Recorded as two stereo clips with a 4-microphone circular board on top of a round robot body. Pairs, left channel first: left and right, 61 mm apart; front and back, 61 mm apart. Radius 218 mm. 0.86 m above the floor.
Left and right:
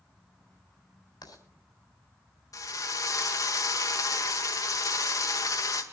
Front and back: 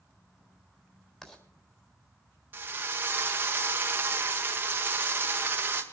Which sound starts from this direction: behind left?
A drill, at 2.5 s.